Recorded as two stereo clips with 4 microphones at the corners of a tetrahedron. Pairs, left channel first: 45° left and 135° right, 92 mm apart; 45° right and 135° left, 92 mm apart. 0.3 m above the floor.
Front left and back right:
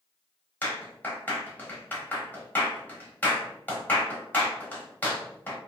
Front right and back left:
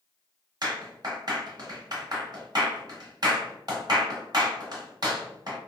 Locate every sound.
0.6 s a clap: 110° left, 1.1 m